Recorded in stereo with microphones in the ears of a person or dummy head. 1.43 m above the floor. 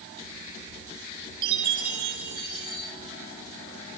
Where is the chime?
55° right (ahead or behind), 7 m.